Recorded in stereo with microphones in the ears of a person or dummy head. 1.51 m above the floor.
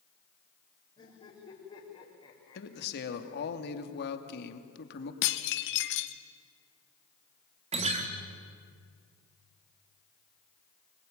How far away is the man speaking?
About 2 m.